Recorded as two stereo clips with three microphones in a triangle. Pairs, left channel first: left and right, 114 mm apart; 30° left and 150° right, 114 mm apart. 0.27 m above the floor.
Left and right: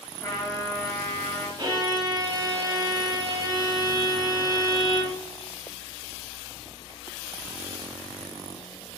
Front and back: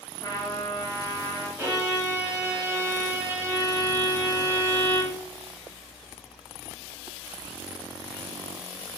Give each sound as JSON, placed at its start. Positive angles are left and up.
{"t": 0.2, "sound": "a trumpet", "azimuth_deg": 65, "distance_m": 1.3}
{"t": 1.6, "sound": "a violin", "azimuth_deg": -100, "distance_m": 0.9}